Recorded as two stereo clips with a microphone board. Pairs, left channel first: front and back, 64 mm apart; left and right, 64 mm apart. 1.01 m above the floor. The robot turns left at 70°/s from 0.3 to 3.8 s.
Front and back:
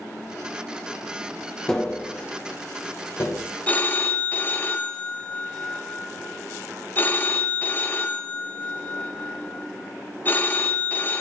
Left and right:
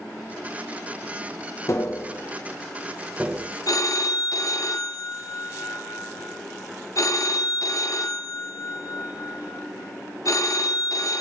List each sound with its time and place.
1.7 s tapping: 80° left, 0.8 m; by 3.4 s 40° right, 0.8 m
3.7 s a phone ringing: 70° left, 0.6 m; by 11.2 s 60° left, 0.6 m